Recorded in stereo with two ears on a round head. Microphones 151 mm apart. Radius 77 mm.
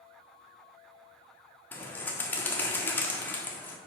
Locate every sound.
1.7 s a bird: 10° left (ahead or behind), 1.2 m